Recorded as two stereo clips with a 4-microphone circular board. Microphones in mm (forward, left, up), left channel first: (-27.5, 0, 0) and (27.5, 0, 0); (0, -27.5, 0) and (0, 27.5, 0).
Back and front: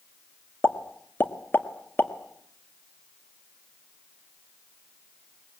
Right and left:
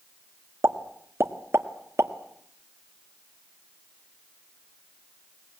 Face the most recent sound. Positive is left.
turn(degrees=125)